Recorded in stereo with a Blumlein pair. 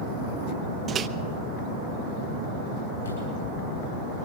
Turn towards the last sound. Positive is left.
turn(degrees=70)